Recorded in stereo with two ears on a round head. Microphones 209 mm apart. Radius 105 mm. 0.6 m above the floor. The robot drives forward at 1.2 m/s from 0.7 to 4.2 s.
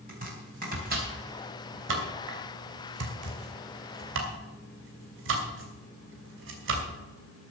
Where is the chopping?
40° right (ahead or behind), 4 m; by 6.9 s 60° right (ahead or behind), 3 m.